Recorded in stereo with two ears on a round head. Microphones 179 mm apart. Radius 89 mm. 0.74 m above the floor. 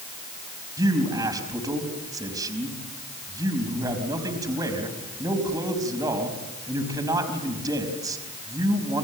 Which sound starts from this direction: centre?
A man speaking, at 0.8 s.